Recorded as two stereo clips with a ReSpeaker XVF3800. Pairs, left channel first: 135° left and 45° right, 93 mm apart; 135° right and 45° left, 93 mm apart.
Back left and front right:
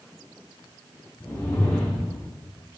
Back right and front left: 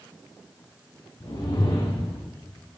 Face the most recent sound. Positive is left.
turn(degrees=-160)